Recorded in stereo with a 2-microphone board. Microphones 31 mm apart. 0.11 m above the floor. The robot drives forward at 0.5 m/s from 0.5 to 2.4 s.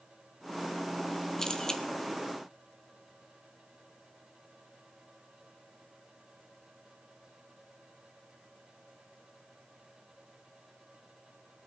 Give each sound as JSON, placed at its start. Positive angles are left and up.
{"t": 1.4, "sound": "a camera shutter", "side_deg": 15, "distance_m": 1.3}